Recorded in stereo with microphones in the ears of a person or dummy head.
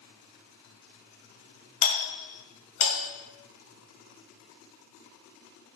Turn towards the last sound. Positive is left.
turn(degrees=40)  # may be behind; listen again after turning